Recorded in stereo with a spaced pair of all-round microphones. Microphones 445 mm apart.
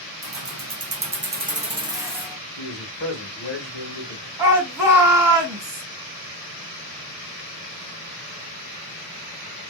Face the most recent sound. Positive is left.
turn(degrees=-55)  # may be behind; listen again after turning